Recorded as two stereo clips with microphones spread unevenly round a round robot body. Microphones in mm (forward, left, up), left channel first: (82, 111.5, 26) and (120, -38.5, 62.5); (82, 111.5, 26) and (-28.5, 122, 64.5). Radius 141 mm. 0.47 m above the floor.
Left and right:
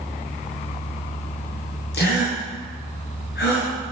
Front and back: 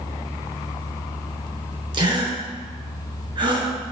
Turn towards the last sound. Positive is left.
turn(degrees=125)